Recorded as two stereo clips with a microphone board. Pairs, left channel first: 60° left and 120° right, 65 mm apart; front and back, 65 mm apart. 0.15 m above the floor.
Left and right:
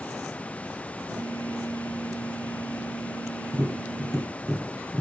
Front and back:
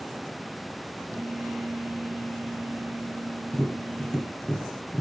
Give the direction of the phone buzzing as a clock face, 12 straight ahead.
3 o'clock.